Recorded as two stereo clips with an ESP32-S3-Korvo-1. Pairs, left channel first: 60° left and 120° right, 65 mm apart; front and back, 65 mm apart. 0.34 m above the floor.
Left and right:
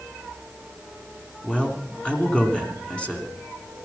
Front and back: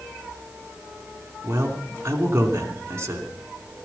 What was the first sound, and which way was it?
A man speaking, 135° left.